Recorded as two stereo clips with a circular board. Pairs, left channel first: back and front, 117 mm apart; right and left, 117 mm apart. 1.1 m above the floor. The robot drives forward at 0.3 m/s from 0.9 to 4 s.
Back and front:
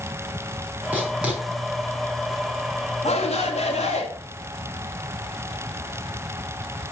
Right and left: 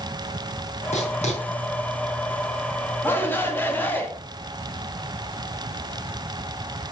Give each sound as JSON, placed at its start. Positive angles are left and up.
{"t": 0.9, "sound": "writing", "azimuth_deg": -75, "distance_m": 5.5}
{"t": 3.0, "sound": "a shout", "azimuth_deg": -160, "distance_m": 2.5}